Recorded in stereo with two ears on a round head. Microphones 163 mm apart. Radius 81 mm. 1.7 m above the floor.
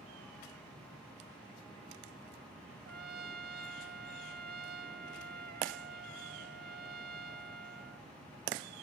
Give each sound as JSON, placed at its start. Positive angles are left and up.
{"t": 2.9, "sound": "a trumpet", "side_deg": -55}